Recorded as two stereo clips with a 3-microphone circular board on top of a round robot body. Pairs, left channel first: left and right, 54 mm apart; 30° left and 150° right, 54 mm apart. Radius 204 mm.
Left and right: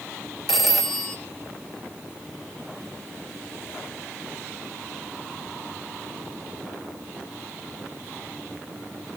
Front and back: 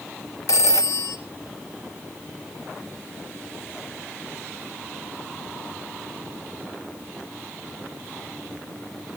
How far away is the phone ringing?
About 1.5 m.